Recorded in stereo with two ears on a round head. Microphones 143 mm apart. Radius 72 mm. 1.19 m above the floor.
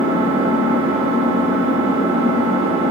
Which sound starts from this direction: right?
An engine running, at 0.0 s.